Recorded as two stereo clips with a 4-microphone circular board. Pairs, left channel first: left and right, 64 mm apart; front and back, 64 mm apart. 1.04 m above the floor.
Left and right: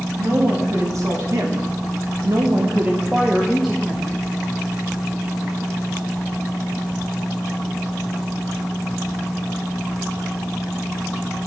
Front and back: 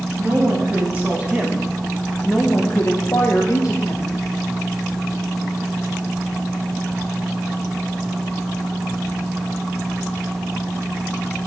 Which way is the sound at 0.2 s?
125° right.